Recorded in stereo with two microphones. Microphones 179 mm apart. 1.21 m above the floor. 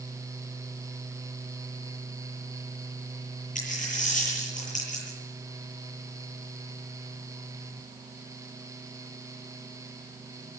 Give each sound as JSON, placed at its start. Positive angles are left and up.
{"t": 3.5, "sound": "a dropped coin", "side_deg": 45, "distance_m": 9.5}